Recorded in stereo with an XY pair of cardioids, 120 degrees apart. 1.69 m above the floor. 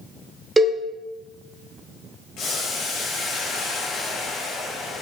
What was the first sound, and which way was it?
A cowbell, 15° right.